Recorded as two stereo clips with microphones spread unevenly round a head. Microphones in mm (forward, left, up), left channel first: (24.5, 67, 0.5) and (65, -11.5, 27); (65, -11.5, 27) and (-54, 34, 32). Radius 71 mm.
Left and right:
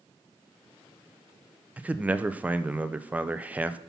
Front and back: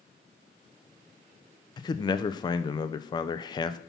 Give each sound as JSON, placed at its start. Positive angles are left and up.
{"t": 1.8, "sound": "a man speaking", "azimuth_deg": 20, "distance_m": 0.7}